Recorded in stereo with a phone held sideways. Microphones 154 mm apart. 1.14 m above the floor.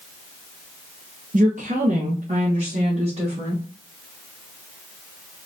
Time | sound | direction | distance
1.3 | a woman speaking | 55° right (ahead or behind) | 1.1 m